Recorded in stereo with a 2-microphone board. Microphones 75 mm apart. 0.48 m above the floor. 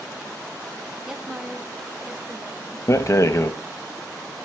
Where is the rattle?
45° left (ahead or behind), 0.6 m.